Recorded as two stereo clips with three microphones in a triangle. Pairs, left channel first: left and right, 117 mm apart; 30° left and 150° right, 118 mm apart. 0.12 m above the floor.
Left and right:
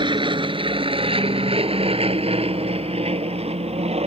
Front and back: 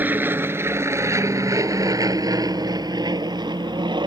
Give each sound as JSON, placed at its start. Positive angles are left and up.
{"t": 0.0, "sound": "an aircraft", "azimuth_deg": -85}